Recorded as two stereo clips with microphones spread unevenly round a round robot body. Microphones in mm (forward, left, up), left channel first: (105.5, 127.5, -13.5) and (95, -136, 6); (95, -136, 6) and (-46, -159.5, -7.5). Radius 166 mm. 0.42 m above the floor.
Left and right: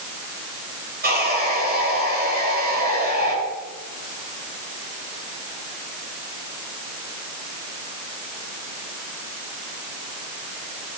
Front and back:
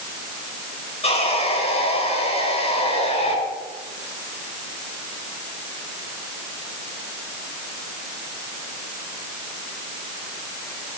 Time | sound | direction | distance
1.0 | sawing | 35° right | 6 m